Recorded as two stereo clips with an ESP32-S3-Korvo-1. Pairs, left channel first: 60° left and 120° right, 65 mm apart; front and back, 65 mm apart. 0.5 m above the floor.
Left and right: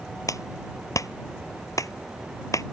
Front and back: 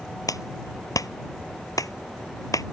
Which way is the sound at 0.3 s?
25° left.